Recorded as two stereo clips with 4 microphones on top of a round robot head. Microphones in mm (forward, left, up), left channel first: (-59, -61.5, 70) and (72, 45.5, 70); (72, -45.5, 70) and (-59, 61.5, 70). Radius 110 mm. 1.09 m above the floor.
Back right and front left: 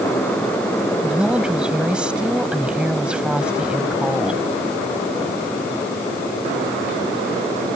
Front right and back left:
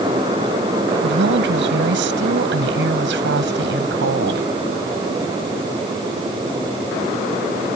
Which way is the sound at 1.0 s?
125° left.